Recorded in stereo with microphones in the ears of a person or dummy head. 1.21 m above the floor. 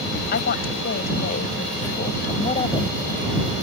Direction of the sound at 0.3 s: 60° left (ahead or behind).